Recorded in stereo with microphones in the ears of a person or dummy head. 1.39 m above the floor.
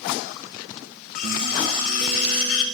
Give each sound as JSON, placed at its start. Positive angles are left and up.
{"t": 1.1, "sound": "cutlery clinking", "side_deg": 45, "distance_m": 0.9}